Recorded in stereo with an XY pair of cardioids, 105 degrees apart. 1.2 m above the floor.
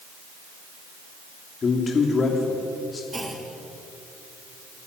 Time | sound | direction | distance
1.6 | a man speaking | 40° left | 3 m
3.1 | a clunk | 10° right | 3 m